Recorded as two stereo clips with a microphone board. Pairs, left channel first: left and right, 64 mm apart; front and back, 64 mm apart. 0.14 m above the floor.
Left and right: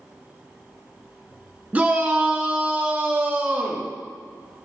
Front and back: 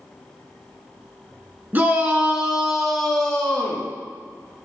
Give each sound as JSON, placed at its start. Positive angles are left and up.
{"t": 1.7, "sound": "a shout", "azimuth_deg": -140, "distance_m": 1.7}